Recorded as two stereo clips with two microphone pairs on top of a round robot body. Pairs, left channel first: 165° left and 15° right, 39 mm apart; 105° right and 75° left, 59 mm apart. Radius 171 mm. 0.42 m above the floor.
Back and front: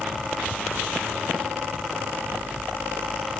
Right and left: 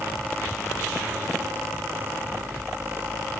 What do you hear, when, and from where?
Only background noise.